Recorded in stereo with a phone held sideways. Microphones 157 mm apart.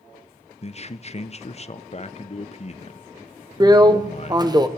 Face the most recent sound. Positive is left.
turn(degrees=-25)  # may be behind; listen again after turning